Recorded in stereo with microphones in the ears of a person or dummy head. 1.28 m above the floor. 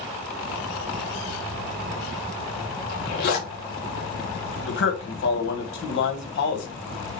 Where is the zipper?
55° left (ahead or behind), 1.1 m.